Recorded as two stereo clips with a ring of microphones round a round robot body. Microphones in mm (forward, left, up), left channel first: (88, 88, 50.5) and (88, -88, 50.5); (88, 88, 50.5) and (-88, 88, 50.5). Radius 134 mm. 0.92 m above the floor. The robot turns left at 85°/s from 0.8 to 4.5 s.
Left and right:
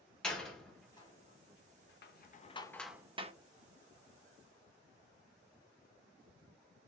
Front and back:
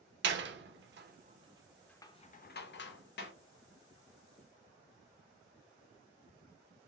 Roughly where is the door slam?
Behind.